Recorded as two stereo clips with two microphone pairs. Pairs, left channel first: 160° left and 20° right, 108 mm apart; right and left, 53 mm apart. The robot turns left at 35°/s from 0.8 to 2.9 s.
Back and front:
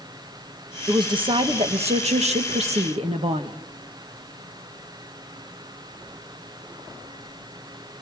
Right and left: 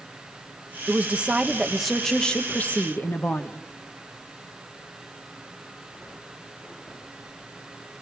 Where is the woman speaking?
30° left, 1.5 m; by 3.6 s 40° right, 1.5 m.